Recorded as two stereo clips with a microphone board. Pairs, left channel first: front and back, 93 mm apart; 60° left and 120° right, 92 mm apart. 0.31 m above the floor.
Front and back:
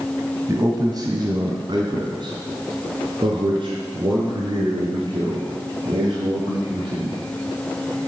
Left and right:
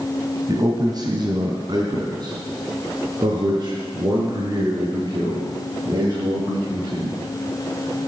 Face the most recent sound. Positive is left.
turn(degrees=-160)